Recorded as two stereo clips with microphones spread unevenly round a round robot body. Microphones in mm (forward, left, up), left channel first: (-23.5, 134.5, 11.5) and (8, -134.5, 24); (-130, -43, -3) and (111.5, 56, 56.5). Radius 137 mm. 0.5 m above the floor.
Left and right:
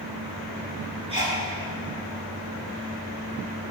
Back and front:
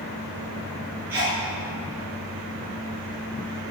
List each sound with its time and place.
1.1 s a sneeze: 15° right, 6.5 m